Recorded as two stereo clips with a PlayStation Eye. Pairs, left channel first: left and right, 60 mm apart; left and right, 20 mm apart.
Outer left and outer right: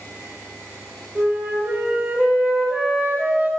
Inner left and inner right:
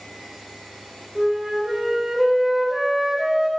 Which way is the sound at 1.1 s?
20° right (ahead or behind).